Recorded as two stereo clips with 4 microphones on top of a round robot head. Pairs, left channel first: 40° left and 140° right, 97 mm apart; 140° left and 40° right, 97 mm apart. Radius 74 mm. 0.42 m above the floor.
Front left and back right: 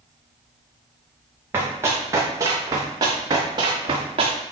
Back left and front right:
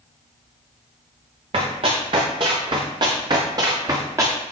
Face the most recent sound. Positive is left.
turn(degrees=-105)